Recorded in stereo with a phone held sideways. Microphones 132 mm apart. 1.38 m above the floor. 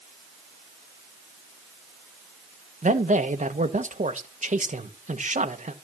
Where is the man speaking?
70° right (ahead or behind), 1.3 m.